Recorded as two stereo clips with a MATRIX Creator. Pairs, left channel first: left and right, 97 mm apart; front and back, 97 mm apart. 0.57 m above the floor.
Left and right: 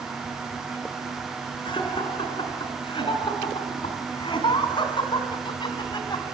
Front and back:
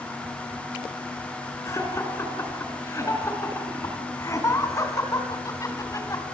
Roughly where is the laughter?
Ahead left.